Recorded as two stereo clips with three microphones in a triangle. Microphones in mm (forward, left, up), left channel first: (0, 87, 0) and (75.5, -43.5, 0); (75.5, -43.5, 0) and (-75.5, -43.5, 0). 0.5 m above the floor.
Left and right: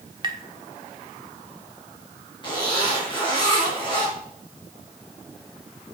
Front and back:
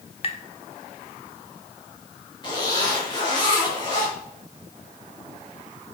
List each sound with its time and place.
0.2 s tapping: 15° right, 1.1 m
2.4 s a zipper: 60° left, 5 m